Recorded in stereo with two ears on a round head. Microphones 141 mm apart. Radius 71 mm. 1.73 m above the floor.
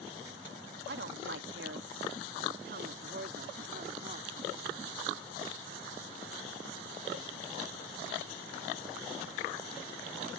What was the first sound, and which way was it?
A woman speaking, 70° right (ahead or behind).